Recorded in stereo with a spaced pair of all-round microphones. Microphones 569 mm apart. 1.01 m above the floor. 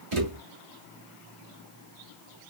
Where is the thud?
60° right (ahead or behind), 1.3 m.